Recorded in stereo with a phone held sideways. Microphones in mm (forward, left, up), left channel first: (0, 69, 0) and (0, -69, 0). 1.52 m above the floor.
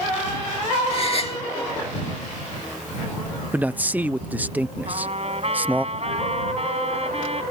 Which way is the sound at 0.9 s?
45° left (ahead or behind).